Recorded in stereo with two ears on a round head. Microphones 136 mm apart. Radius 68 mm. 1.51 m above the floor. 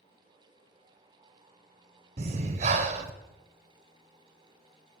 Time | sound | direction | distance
2.2 | breathing | 40° right (ahead or behind) | 0.8 m